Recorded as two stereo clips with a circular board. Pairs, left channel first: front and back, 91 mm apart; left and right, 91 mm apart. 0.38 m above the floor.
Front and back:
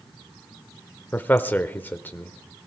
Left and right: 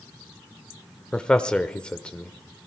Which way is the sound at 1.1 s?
30° left.